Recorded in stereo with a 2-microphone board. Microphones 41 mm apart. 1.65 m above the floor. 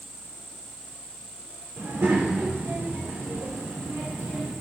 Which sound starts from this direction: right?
A child speaking, at 1.8 s.